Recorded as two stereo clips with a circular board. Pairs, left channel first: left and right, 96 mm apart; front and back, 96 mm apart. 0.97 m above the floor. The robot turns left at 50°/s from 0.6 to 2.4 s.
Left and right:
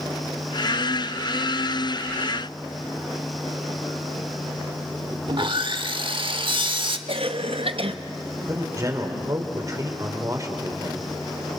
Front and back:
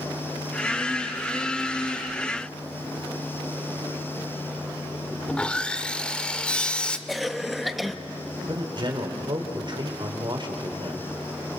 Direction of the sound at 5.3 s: 80° right.